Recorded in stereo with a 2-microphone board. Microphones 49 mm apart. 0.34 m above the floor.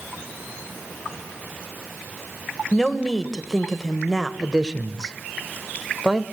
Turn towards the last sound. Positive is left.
turn(degrees=-15)  # may be behind; listen again after turning